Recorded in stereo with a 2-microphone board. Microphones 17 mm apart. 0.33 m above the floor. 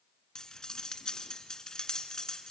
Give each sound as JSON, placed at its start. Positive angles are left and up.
{"t": 0.3, "sound": "cutlery clinking", "side_deg": 40, "distance_m": 2.0}